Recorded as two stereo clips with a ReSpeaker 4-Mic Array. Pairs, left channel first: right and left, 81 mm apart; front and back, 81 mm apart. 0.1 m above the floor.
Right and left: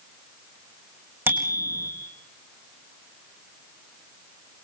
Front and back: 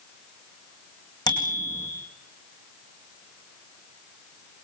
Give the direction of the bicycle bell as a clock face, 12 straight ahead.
11 o'clock.